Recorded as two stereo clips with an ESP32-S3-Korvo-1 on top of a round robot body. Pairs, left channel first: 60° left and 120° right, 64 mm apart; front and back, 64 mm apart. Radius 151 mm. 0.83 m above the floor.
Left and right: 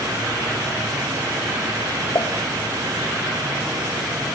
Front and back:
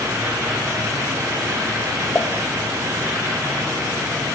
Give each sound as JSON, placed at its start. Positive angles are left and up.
{"t": 2.1, "sound": "a pop", "azimuth_deg": 60, "distance_m": 1.9}